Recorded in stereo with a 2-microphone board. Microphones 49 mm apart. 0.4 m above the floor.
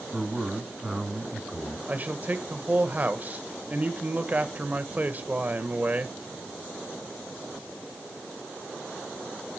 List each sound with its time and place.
0.1 s a man speaking: 15° right (ahead or behind), 3 m
1.9 s a man speaking: 35° right (ahead or behind), 1.2 m